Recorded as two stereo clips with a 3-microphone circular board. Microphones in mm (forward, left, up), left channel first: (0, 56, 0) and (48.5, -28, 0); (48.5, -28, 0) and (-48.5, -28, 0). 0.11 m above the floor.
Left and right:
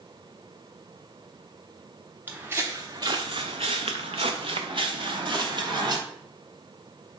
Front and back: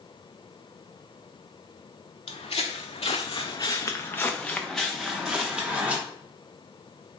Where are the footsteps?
10° left, 0.8 m; by 6.0 s 100° right, 1.5 m.